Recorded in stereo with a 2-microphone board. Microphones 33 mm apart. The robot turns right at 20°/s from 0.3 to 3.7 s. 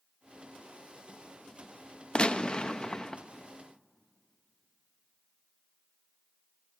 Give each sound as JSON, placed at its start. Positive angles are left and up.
{"t": 2.1, "sound": "a gunshot", "side_deg": 35, "distance_m": 0.5}